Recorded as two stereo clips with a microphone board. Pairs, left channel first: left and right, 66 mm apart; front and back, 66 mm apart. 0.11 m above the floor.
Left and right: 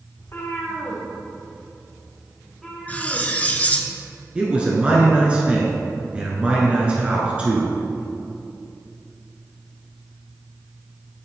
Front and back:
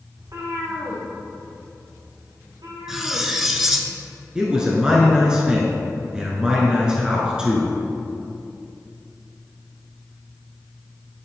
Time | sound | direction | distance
0.2 | a cat meowing | 140° left | 2.5 m
2.9 | cutlery clinking | 105° left | 0.7 m
4.3 | a man speaking | 125° right | 1.3 m